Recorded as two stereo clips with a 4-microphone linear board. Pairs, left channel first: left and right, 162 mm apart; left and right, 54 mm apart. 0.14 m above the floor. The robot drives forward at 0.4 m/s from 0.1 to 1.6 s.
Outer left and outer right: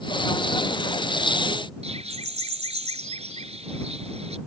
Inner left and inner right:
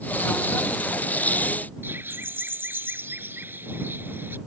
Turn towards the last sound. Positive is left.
turn(degrees=-40)  # may be behind; listen again after turning